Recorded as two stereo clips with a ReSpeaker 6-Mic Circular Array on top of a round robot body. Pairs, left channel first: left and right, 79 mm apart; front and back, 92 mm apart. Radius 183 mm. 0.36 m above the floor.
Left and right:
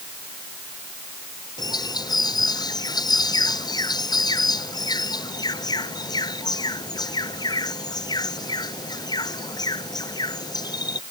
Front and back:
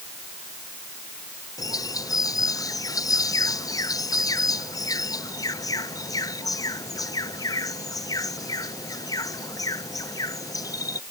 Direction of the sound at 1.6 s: 50° left.